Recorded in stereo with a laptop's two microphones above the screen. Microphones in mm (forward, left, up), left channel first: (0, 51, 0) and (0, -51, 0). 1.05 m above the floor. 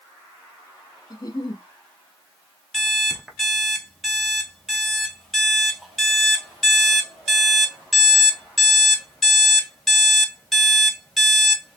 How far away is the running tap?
No running tap in this recording.